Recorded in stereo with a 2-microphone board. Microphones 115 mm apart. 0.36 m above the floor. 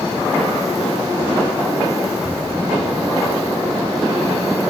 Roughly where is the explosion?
Right.